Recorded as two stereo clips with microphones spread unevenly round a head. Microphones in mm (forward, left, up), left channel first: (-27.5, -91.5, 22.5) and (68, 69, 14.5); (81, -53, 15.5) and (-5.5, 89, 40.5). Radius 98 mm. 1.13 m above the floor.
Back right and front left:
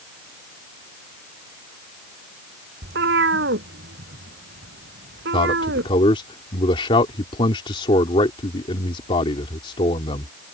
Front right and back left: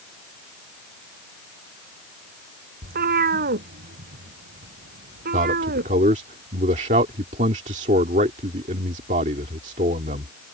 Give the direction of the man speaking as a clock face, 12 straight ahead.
6 o'clock.